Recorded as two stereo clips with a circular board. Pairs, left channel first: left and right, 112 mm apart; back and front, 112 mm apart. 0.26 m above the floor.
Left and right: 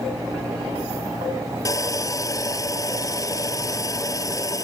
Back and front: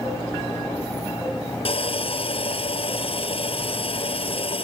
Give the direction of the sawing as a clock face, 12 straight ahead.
7 o'clock.